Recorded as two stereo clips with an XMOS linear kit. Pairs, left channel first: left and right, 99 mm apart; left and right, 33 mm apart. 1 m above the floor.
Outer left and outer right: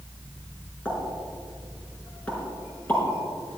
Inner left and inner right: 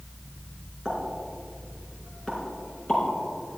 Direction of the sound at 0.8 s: 20° left (ahead or behind).